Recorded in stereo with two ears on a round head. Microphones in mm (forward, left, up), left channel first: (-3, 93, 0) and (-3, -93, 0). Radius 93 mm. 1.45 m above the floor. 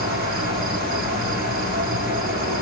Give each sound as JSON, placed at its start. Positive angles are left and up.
{"t": 0.0, "sound": "an insect", "side_deg": -45, "distance_m": 2.0}